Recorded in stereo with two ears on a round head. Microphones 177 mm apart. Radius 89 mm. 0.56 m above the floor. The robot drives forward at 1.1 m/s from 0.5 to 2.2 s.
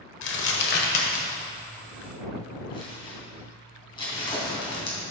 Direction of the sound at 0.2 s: 60° left (ahead or behind).